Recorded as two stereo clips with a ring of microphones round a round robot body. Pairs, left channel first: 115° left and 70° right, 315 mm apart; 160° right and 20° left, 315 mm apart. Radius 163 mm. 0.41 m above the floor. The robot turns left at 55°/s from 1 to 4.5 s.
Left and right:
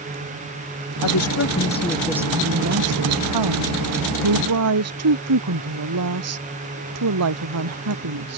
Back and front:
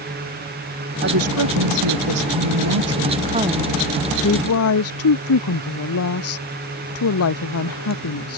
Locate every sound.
1.0 s a woman speaking: 80° left; by 8.4 s 110° right